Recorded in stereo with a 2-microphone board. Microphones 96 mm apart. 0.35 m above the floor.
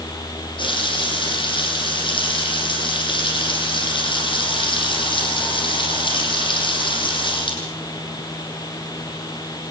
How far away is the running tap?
About 8 m.